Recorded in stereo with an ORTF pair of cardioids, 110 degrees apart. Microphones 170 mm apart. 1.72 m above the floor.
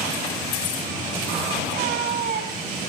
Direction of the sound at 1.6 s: 65° right.